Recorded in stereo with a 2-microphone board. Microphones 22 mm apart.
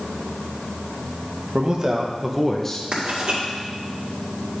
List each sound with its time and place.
1.5 s a man speaking: 45° right (ahead or behind), 1.3 m; by 2.8 s 20° left (ahead or behind), 1.0 m
2.9 s writing: 60° right (ahead or behind), 2 m